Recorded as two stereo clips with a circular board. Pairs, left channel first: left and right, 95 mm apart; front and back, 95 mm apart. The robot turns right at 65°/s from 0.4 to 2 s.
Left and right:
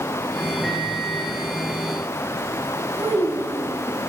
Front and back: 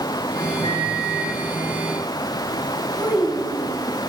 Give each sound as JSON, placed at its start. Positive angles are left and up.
{"t": 0.6, "sound": "a microwave", "azimuth_deg": -5, "distance_m": 6.5}
{"t": 3.0, "sound": "a child speaking", "azimuth_deg": -125, "distance_m": 6.5}